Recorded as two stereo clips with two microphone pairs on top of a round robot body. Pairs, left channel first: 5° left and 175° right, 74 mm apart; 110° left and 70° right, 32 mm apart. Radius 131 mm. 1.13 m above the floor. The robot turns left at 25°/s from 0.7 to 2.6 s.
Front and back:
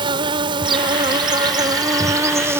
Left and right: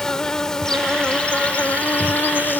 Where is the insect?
170° left; by 2.6 s 120° left.